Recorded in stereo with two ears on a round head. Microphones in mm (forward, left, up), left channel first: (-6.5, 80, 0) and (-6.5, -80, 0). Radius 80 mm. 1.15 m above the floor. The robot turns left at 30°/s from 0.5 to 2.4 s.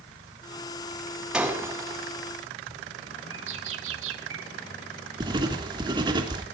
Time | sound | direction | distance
1.3 | breaking glass | 5° right (ahead or behind) | 5.5 m
3.3 | a bird | 80° right | 3 m
5.2 | writing | 25° right (ahead or behind) | 3 m